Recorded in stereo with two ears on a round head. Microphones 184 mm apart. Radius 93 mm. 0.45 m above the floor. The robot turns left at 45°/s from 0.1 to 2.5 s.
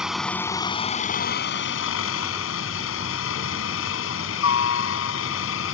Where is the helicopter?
175° right; by 5.7 s 75° left.